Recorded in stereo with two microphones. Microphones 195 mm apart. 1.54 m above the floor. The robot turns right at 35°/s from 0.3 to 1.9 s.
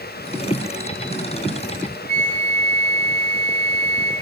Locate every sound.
2.1 s a flute: 45° right (ahead or behind), 4.5 m